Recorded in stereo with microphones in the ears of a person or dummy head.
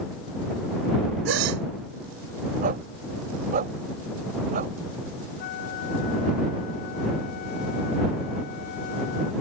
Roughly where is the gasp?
Right.